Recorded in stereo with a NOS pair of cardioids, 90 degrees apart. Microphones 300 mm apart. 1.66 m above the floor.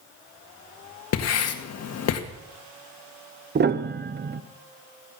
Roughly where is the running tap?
No running tap in this recording.